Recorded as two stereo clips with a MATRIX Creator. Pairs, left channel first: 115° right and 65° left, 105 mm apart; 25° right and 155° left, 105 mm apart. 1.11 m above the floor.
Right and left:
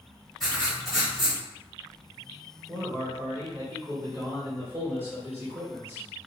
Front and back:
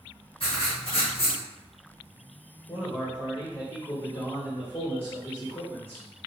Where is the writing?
25° right, 1.7 m.